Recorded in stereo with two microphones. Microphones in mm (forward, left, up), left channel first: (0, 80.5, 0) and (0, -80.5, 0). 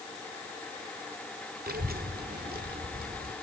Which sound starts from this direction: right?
A child speaking, at 1.7 s.